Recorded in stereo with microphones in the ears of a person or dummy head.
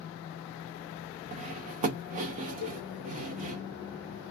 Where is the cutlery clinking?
25° right (ahead or behind), 0.6 m.